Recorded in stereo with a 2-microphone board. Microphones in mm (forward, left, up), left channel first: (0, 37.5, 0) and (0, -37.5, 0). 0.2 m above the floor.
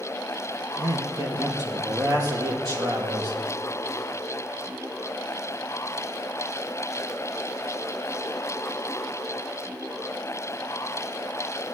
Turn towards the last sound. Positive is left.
turn(degrees=-60)  # may be behind; listen again after turning